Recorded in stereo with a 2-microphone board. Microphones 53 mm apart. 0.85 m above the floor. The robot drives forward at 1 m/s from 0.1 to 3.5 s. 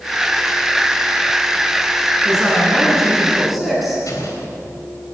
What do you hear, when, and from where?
2.2 s a woman speaking: centre (ahead or behind), 9.5 m
4.1 s an explosion: 85° left, 3.5 m